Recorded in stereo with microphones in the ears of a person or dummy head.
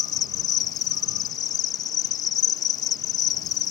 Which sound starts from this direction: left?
An insect, at 0.0 s.